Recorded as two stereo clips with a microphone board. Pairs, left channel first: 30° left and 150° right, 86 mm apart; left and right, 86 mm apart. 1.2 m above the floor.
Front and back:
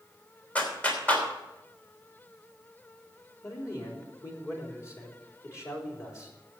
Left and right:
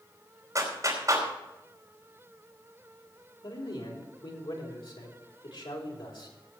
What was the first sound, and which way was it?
A clap, 40° right.